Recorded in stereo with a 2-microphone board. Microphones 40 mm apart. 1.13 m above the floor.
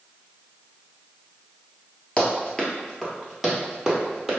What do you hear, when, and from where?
2.2 s running footsteps: 20° left (ahead or behind), 1.1 m; by 4.4 s 10° right (ahead or behind), 1.7 m